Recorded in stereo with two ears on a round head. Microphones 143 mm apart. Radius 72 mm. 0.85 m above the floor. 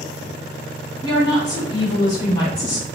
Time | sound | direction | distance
1.0 | a woman speaking | 20° left (ahead or behind) | 1.6 m